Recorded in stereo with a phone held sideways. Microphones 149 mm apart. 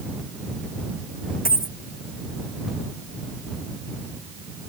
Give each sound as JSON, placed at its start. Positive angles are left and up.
{"t": 1.4, "sound": "a dropped coin", "side_deg": 75}